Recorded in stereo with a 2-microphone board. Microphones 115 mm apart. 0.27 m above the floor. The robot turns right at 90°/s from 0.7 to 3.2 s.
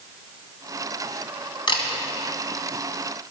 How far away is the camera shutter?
About 2 m.